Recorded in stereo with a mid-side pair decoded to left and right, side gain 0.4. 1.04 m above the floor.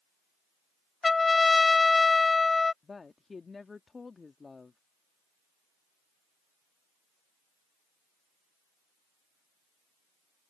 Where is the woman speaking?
35° left.